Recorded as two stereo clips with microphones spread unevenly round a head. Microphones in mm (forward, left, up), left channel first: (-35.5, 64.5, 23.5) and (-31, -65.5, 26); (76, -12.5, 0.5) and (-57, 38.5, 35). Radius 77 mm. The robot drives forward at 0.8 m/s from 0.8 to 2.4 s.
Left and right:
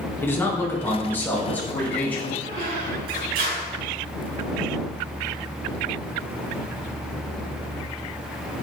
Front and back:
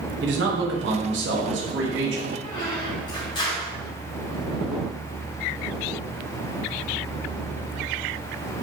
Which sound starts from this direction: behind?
A man speaking, at 0.2 s.